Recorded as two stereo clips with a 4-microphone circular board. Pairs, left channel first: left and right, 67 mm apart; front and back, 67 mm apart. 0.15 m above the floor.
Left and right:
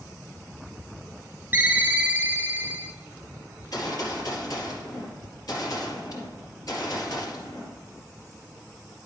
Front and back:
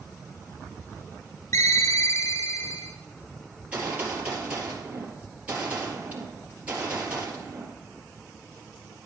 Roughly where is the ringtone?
Ahead right.